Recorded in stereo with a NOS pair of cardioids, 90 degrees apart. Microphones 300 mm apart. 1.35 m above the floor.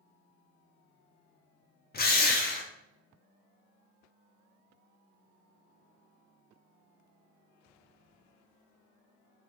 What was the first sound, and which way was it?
A drill, 30° left.